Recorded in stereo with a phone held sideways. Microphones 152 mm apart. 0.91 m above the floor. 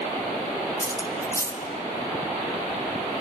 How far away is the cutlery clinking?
About 1.2 m.